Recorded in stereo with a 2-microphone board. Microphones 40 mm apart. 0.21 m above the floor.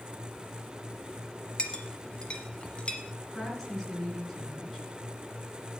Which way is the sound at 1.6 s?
30° left (ahead or behind).